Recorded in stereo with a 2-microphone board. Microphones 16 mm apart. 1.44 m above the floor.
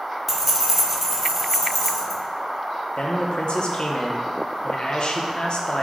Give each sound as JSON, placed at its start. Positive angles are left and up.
{"t": 0.3, "sound": "keys jangling", "side_deg": -15, "distance_m": 0.6}
{"t": 3.0, "sound": "a man speaking", "side_deg": 55, "distance_m": 0.6}